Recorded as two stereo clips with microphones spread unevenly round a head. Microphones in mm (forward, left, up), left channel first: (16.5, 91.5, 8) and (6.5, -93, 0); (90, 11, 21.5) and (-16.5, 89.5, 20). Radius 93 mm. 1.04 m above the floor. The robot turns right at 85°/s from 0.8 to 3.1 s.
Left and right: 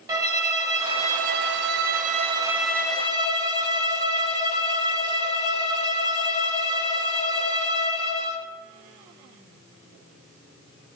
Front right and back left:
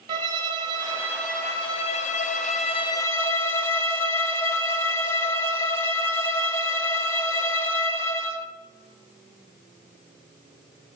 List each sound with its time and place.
0.1 s a violin: 160° right, 0.8 m; by 8.5 s 35° left, 0.8 m